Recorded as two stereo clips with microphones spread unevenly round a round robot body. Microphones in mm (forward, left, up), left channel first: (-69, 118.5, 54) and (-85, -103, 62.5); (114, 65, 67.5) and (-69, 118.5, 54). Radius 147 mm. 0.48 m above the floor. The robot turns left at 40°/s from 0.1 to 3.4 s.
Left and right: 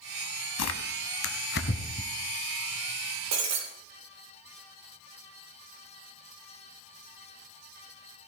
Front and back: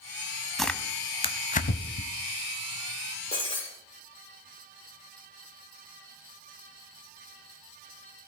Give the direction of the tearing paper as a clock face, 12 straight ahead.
10 o'clock.